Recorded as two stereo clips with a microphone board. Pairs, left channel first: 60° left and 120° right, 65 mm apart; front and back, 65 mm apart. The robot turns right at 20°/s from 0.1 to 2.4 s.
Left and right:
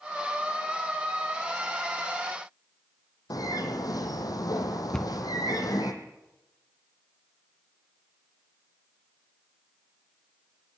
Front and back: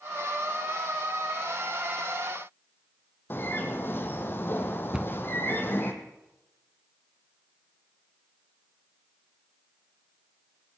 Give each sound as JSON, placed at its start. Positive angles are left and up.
{"t": 3.3, "sound": "a bird", "azimuth_deg": 55, "distance_m": 2.0}
{"t": 4.9, "sound": "a cupboard door", "azimuth_deg": 125, "distance_m": 0.5}